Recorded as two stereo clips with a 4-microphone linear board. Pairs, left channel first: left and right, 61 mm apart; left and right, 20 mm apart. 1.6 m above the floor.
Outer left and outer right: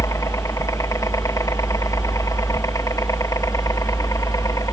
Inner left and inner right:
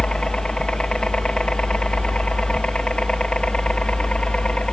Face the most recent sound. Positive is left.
turn(degrees=60)  # may be behind; listen again after turning